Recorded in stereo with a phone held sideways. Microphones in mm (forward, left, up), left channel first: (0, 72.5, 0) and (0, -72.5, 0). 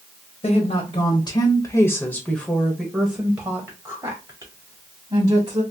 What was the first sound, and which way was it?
A woman speaking, 55° left (ahead or behind).